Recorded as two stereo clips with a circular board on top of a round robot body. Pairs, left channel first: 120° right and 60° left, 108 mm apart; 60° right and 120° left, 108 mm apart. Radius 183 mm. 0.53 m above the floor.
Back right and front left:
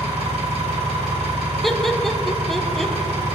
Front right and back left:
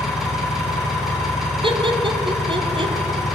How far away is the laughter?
About 1.1 m.